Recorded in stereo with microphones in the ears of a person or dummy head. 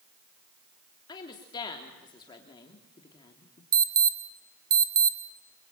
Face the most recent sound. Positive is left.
turn(degrees=-25)  # may be behind; listen again after turning